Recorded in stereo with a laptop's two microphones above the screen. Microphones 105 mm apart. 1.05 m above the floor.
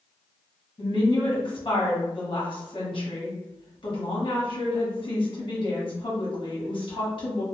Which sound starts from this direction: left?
A woman speaking, at 0.8 s.